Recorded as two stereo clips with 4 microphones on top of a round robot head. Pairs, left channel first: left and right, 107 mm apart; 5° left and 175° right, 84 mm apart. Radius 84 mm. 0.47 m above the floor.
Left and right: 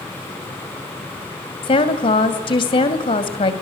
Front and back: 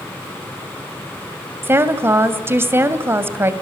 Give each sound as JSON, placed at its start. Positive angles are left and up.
{"t": 1.6, "sound": "a woman speaking", "azimuth_deg": 130, "distance_m": 2.5}